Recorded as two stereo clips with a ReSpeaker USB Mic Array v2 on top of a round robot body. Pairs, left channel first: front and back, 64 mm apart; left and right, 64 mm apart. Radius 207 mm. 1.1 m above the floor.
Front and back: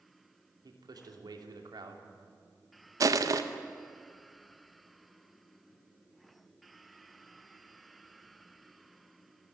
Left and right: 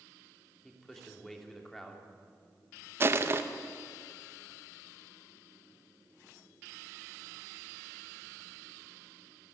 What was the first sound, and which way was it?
A man speaking, 175° left.